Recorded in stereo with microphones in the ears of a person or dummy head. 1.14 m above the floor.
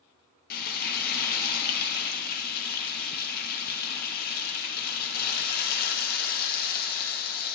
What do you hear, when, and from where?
0.5 s frying: 45° left (ahead or behind), 1.3 m